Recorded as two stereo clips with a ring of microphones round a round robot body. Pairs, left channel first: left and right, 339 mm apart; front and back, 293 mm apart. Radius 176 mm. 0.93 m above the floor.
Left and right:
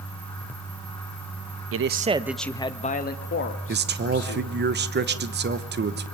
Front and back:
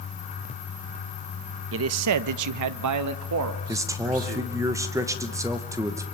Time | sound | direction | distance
1.7 | a man speaking | 135° right | 0.7 m
3.7 | a man speaking | 110° right | 1.0 m